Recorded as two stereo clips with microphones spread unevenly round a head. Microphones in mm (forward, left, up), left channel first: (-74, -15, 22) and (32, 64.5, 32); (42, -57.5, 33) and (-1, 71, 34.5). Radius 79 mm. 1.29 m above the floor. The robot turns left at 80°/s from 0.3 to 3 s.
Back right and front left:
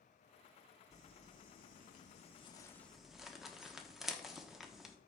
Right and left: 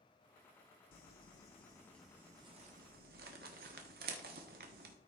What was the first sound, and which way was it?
Crumpling, 70° right.